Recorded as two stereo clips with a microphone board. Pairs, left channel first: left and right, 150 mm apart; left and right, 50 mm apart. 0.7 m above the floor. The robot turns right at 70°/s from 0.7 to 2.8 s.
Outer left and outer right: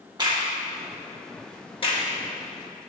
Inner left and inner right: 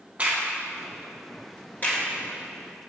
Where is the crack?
30° right (ahead or behind), 1.4 m; by 2.0 s 45° left (ahead or behind), 1.4 m.